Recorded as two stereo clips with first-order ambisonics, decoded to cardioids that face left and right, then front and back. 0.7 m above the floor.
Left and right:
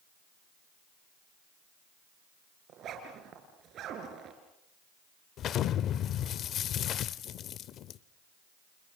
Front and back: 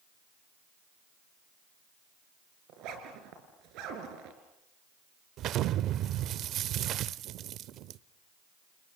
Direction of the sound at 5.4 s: 140° left.